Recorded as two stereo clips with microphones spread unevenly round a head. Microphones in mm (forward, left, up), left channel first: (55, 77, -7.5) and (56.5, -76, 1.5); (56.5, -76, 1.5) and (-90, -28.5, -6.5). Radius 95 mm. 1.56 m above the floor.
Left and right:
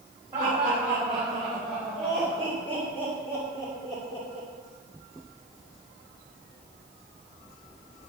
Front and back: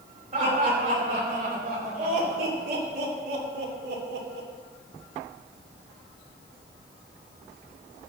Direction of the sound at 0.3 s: 150° right.